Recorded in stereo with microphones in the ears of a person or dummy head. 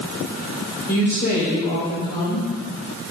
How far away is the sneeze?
I don't hear a sneeze.